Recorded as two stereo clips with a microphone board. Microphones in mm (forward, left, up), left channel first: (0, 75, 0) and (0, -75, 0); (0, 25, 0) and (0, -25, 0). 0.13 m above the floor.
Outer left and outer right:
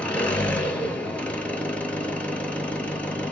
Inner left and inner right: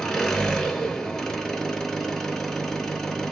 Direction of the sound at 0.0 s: 10° left (ahead or behind).